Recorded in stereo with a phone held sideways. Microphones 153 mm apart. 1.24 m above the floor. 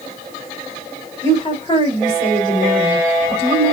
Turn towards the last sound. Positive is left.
turn(degrees=25)  # may be behind; listen again after turning